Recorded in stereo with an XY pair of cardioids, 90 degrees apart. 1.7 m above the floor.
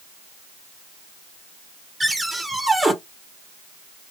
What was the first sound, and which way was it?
A cupboard door, 20° right.